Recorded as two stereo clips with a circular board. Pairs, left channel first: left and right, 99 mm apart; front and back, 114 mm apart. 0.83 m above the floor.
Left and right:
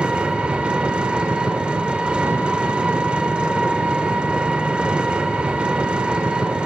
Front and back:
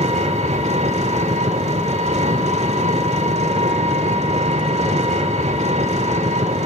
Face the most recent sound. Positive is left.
turn(degrees=-170)